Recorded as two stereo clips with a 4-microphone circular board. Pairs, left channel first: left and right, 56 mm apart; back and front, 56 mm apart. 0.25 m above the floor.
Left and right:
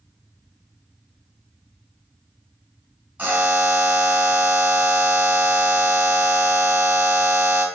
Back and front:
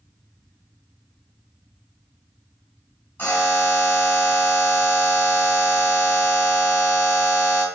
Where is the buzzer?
140° right, 2 m.